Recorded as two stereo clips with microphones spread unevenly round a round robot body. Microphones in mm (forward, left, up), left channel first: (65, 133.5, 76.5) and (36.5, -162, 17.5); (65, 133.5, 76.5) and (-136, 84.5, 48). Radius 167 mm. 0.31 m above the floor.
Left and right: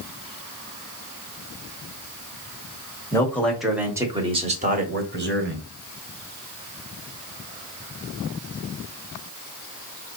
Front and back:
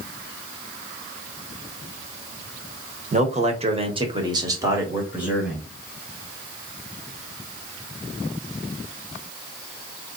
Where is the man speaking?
175° left, 1.5 m; by 5.7 s 85° right, 1.7 m.